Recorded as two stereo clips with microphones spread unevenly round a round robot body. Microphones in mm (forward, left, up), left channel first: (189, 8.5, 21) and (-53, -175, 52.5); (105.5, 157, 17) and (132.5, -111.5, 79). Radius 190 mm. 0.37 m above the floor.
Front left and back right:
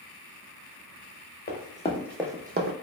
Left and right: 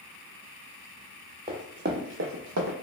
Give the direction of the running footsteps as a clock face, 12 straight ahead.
1 o'clock.